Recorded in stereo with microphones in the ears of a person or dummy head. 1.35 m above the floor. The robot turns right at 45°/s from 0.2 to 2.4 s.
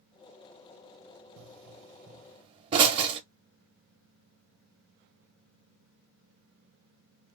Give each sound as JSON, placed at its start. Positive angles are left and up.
{"t": 1.4, "sound": "a pop", "side_deg": -80, "distance_m": 0.6}